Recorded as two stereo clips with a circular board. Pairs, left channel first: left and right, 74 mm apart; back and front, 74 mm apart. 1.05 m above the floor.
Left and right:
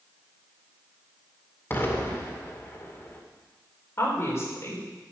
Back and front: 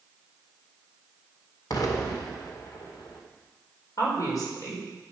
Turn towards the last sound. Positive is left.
turn(degrees=145)